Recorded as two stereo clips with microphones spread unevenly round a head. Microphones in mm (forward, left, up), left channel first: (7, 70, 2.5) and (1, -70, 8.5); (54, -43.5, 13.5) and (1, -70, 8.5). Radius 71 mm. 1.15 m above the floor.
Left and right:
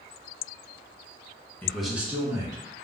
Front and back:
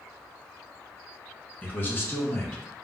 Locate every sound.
1.6 s a man speaking: 50° left, 0.6 m; by 2.6 s 30° right, 1.2 m